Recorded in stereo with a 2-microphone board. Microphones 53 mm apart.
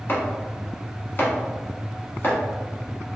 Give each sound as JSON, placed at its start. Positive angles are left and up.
{"t": 0.1, "sound": "chopping", "side_deg": 45, "distance_m": 1.0}